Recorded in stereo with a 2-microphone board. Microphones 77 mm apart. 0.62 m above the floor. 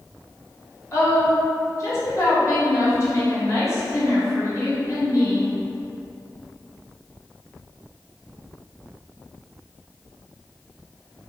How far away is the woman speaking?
About 0.9 m.